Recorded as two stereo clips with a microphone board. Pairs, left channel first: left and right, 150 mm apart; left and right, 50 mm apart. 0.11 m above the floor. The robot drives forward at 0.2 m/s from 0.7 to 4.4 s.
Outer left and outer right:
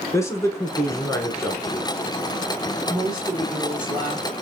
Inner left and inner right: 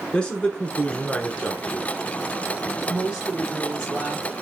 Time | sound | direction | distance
0.1 | a man speaking | 20° left (ahead or behind) | 1.1 m
2.9 | a woman speaking | 30° right (ahead or behind) | 1.3 m